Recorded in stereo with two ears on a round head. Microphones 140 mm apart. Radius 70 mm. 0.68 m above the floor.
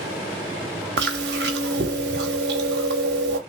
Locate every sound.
1.0 s chewing: 80° right, 0.8 m